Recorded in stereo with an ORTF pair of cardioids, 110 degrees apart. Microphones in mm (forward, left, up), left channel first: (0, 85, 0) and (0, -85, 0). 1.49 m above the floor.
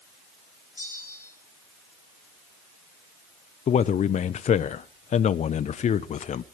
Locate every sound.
0.8 s a bell: 15° left, 7 m
3.7 s a man speaking: 45° left, 1.1 m